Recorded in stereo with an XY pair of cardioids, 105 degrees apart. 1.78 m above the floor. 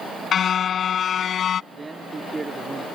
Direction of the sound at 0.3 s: 55° left.